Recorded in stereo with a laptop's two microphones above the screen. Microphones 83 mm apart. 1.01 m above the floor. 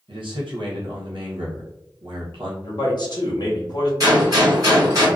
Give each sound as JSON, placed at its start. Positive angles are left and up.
{"t": 0.1, "sound": "a man speaking", "side_deg": -75, "distance_m": 0.8}
{"t": 2.6, "sound": "a man speaking", "side_deg": 50, "distance_m": 0.9}
{"t": 4.0, "sound": "a gunshot", "side_deg": -45, "distance_m": 1.4}